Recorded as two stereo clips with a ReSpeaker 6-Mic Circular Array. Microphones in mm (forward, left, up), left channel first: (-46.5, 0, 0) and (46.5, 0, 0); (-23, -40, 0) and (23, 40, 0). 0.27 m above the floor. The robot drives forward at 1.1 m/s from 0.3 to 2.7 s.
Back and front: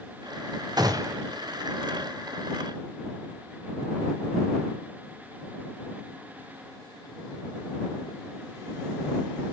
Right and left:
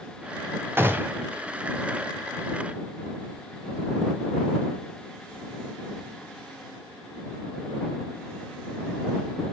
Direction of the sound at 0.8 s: 5° left.